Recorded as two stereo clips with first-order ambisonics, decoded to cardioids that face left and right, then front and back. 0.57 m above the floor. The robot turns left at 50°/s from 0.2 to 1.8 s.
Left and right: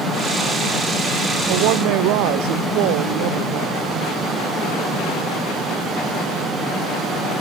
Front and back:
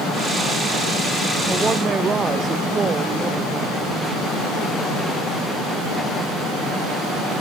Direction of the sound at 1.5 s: 95° right.